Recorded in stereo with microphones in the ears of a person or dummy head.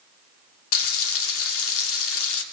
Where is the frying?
75° left (ahead or behind), 2.5 m.